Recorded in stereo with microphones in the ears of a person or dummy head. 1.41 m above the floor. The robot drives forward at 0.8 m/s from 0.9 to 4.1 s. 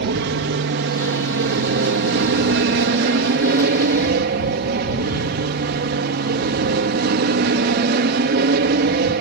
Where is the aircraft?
50° right (ahead or behind); by 9.2 s 45° right (ahead or behind).